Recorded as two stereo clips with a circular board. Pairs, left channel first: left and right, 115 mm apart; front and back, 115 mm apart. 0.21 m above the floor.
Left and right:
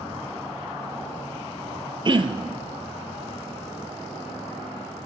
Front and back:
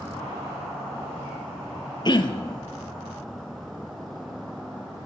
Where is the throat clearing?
45° right, 0.7 m.